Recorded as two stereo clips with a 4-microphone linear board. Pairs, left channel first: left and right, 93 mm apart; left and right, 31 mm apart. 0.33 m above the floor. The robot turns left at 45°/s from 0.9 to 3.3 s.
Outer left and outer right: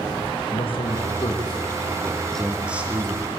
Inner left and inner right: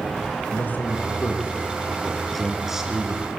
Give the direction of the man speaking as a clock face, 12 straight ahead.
10 o'clock.